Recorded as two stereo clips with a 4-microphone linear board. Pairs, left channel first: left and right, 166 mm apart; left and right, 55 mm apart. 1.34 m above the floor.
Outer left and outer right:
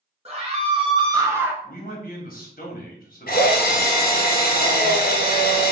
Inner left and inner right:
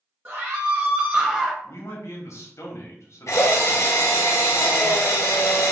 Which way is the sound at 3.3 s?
65° left (ahead or behind).